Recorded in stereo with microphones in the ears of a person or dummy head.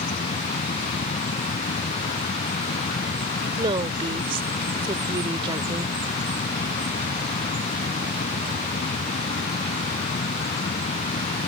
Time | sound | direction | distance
0.0 | a fan | 35° left (ahead or behind) | ?
3.6 | a woman speaking | 35° right (ahead or behind) | ?